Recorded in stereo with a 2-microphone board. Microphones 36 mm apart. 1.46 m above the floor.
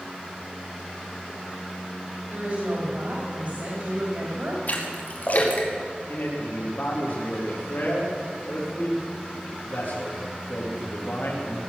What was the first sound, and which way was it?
A woman speaking, 55° right (ahead or behind).